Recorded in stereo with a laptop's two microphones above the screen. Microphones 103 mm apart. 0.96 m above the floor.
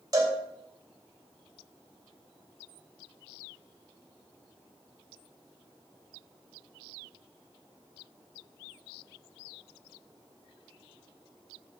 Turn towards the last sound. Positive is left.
turn(degrees=-40)  # may be behind; listen again after turning